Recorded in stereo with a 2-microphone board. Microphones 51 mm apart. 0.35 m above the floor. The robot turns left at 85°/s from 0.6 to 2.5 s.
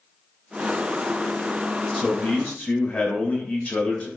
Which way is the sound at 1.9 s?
170° left.